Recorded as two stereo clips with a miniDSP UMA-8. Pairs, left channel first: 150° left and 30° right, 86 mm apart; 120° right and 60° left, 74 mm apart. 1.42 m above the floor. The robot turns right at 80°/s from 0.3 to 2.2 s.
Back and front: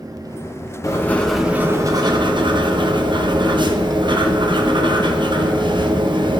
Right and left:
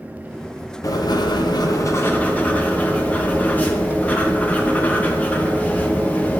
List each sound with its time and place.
0.8 s writing: 160° right, 0.9 m; by 6.4 s 50° right, 0.9 m